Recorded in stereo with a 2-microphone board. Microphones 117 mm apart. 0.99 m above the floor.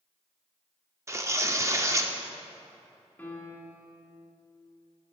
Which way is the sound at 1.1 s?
25° right (ahead or behind).